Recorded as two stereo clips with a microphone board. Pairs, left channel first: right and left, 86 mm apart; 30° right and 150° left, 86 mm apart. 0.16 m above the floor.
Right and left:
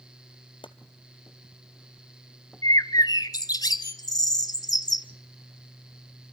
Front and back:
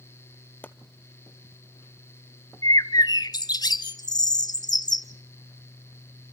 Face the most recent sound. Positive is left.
turn(degrees=-55)